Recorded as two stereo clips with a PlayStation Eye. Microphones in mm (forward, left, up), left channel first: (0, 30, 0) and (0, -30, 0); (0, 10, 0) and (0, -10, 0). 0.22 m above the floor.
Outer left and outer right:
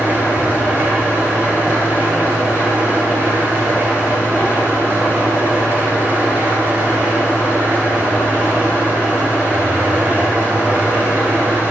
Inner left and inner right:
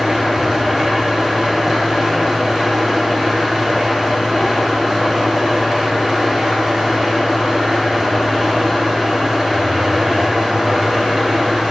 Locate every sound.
0.0 s an engine running: 35° right (ahead or behind), 1.8 m